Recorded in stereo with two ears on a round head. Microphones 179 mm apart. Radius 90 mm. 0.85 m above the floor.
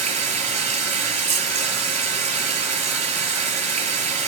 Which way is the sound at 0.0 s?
35° right (ahead or behind).